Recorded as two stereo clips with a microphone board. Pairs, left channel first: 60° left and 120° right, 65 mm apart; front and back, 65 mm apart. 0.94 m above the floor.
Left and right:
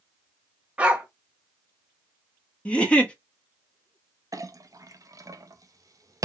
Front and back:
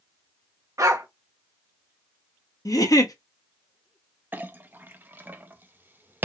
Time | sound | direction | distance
0.8 | a dog barking | 170° left | 1.1 m
2.6 | a giggle | 10° right | 1.0 m
4.3 | a clink | 125° right | 0.5 m